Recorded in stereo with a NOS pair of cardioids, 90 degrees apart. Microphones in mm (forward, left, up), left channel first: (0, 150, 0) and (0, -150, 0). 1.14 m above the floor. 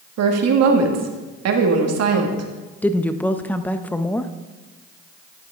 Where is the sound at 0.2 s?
65° right, 1.9 m.